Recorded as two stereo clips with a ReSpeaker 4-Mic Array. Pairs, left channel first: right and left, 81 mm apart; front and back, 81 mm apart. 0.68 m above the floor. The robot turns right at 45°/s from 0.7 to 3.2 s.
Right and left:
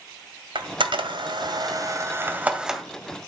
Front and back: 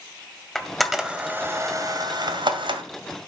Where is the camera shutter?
85° left, 1.7 m; by 2.8 s straight behind, 1.7 m.